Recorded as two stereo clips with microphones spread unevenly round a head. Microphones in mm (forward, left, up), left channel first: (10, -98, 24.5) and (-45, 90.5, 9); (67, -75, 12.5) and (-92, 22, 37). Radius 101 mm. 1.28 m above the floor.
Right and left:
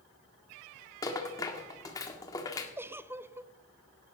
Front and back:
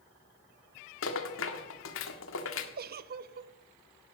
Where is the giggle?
175° right, 0.6 m.